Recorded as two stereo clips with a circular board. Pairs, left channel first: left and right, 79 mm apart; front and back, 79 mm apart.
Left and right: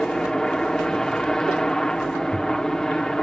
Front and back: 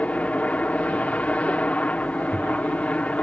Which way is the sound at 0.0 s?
25° left.